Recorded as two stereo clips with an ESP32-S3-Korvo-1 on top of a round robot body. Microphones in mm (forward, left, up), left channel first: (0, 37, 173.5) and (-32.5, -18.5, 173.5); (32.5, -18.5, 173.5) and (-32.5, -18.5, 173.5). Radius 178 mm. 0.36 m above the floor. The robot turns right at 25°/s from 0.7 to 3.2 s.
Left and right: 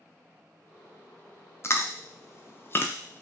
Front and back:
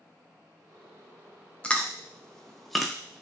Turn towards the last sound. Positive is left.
turn(degrees=100)